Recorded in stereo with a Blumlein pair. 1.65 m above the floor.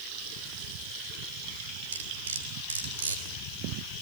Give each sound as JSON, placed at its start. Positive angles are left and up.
{"t": 1.9, "sound": "cutlery clinking", "azimuth_deg": -65, "distance_m": 3.5}